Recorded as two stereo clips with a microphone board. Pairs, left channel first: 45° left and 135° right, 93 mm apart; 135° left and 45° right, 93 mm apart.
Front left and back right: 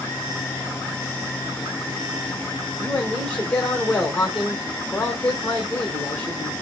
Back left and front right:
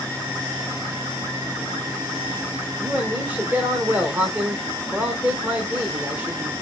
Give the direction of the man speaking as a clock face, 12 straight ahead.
12 o'clock.